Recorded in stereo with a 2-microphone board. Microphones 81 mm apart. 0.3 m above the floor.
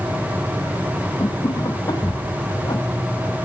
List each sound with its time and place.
1.2 s laughter: 65° left (ahead or behind); by 2.8 s 55° left (ahead or behind)